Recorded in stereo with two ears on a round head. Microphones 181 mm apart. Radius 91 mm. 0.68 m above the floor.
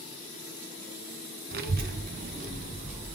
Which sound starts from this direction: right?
A child speaking, at 1.5 s.